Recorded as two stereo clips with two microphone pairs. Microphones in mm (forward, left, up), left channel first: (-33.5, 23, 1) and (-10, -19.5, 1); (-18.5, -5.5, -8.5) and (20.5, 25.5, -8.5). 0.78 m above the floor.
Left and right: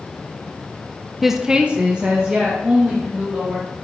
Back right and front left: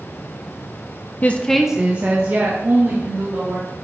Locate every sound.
1.2 s a woman speaking: 150° right, 0.7 m; by 3.7 s 5° left, 3 m